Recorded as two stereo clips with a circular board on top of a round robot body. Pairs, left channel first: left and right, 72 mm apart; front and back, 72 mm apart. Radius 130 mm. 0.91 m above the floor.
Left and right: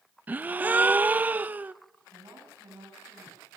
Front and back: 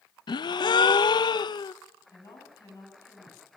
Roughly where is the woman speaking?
Ahead right.